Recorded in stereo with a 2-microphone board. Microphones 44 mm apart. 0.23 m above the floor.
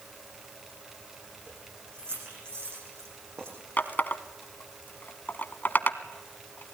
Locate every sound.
1.5 s keys jangling: 65° right (ahead or behind), 8 m
3.8 s a running tap: 45° left (ahead or behind), 1.1 m